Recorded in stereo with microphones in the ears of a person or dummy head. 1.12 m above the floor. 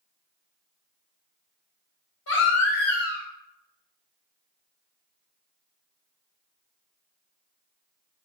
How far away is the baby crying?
About 3.5 m.